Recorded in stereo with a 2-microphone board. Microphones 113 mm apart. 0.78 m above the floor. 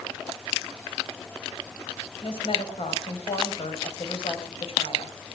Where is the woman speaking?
60° left (ahead or behind), 4.5 m.